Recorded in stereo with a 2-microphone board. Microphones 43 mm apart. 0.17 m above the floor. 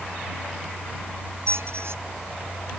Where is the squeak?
75° right (ahead or behind).